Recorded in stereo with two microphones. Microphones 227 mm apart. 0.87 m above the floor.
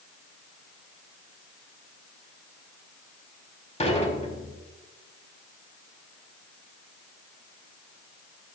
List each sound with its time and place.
3.8 s dishes clattering: 30° left (ahead or behind), 4.5 m